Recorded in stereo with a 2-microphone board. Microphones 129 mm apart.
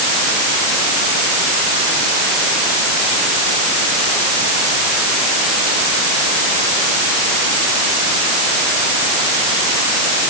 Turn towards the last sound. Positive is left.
No sound to turn to.